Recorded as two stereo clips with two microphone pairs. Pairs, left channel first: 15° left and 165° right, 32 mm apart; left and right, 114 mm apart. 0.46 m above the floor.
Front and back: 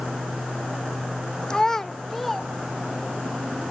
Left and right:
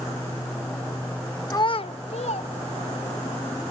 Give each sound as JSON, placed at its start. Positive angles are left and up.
{"t": 1.5, "sound": "a child speaking", "azimuth_deg": 50, "distance_m": 0.5}